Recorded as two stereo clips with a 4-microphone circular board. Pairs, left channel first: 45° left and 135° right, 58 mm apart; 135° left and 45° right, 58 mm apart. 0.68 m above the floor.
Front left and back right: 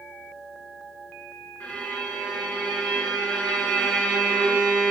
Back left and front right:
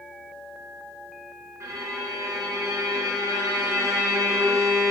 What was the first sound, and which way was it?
A violin, 20° right.